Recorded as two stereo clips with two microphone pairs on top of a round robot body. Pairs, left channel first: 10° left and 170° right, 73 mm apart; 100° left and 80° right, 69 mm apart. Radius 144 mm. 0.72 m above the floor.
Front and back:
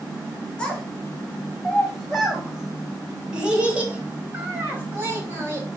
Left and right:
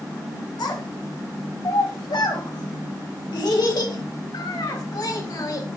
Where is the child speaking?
90° left, 4 m; by 5.7 s 130° left, 3.5 m.